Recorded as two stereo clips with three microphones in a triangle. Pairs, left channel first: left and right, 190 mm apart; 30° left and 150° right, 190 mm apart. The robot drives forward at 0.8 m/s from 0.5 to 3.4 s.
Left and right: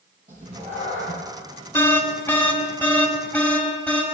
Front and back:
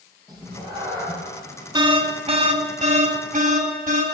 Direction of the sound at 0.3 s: 45° right.